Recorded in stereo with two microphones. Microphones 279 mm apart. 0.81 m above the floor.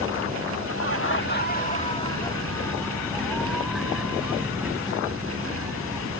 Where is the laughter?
55° left (ahead or behind); by 6.1 s 10° right (ahead or behind).